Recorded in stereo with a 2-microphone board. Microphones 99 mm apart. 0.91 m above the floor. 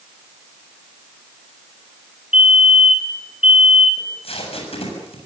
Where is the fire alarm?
75° left (ahead or behind), 5.5 m.